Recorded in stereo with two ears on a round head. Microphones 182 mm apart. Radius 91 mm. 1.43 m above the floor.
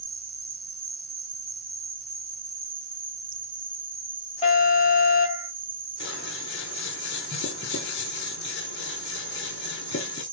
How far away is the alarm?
About 4 m.